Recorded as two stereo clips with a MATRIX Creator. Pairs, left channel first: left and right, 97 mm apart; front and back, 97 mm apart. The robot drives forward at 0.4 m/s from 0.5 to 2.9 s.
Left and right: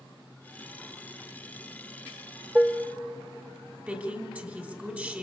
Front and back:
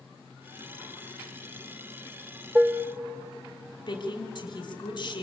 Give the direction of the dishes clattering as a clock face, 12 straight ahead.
5 o'clock.